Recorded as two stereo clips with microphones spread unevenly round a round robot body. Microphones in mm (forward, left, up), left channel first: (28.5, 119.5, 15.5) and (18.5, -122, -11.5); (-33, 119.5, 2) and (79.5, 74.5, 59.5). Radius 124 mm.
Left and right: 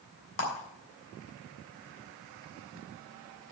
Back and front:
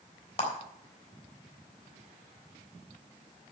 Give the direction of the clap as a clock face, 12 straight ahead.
8 o'clock.